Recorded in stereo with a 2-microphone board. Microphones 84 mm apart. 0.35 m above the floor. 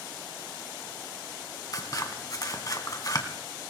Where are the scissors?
45° left (ahead or behind), 2.0 m.